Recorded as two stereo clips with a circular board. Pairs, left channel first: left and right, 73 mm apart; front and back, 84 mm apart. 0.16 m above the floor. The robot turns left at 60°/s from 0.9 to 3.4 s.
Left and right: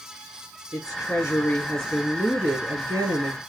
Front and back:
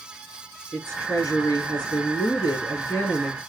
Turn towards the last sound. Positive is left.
turn(degrees=-80)